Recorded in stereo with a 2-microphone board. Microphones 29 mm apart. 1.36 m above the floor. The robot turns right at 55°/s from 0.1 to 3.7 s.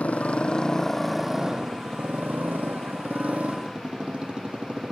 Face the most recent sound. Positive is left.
turn(degrees=-35)